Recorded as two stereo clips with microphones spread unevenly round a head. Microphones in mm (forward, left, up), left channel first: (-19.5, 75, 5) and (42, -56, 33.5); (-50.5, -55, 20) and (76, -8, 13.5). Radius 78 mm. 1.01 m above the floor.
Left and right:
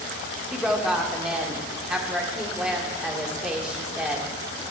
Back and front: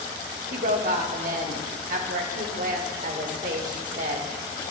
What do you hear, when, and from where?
0.5 s a woman speaking: 25° left, 1.3 m